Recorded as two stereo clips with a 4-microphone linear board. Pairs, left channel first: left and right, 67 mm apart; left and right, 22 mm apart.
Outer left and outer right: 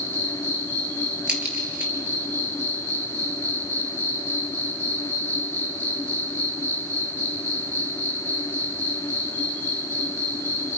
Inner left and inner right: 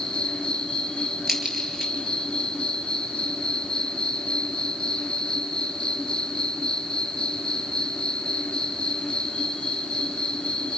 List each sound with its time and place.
0.0 s an insect: 25° left (ahead or behind), 2.5 m
1.3 s a crack: 15° right (ahead or behind), 3.5 m